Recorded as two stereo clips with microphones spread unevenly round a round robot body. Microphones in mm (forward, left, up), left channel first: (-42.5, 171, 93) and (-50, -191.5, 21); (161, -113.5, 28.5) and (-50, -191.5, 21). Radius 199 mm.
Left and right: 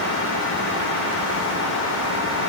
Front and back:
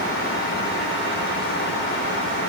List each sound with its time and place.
Only background noise.